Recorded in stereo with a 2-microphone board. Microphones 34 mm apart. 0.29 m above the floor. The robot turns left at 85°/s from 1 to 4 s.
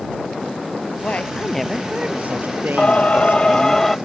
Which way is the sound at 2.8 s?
110° left.